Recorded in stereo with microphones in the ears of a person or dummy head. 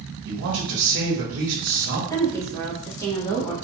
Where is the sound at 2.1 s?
20° left (ahead or behind), 0.9 m.